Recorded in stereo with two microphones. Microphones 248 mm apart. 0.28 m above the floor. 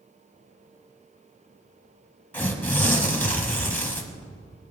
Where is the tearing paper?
10° left (ahead or behind), 1.3 m.